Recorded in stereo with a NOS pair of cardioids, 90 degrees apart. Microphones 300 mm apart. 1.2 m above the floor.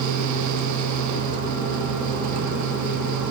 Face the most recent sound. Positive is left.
turn(degrees=-70)